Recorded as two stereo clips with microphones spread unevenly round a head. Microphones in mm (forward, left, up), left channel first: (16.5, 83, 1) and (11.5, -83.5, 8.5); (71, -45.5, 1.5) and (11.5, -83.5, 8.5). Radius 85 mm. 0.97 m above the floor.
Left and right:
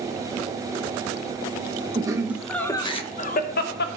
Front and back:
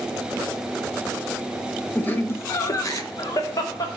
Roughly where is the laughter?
Ahead right.